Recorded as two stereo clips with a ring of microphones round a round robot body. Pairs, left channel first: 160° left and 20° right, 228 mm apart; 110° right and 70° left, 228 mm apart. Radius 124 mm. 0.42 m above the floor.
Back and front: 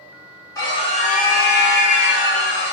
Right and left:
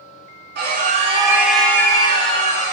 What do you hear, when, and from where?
0.6 s a scream: 85° left, 1.0 m; by 2.7 s 170° right, 1.6 m